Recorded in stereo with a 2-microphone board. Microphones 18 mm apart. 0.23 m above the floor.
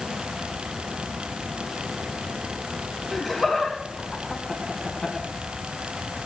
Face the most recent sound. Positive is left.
turn(degrees=50)  # may be behind; listen again after turning